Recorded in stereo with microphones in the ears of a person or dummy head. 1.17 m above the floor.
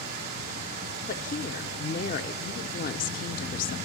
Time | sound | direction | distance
0.0 | running water | 65° right (ahead or behind) | 3 m
1.1 | a woman speaking | 45° left (ahead or behind) | 0.7 m